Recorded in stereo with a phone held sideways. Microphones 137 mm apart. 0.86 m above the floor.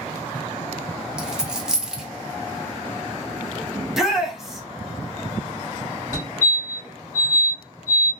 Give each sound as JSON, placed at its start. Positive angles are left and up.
{"t": 1.2, "sound": "a dropped coin", "side_deg": -5, "distance_m": 0.5}
{"t": 3.8, "sound": "a shout", "side_deg": -5, "distance_m": 0.8}
{"t": 6.1, "sound": "a fire alarm", "side_deg": -25, "distance_m": 1.5}